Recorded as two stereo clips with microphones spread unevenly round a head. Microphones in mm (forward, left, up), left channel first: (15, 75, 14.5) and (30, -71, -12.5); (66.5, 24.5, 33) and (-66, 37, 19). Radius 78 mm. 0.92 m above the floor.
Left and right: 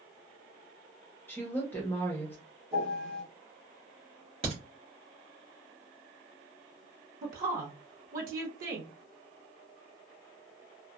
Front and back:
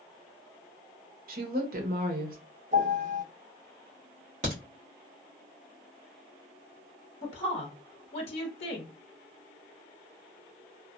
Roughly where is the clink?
No clink in this recording.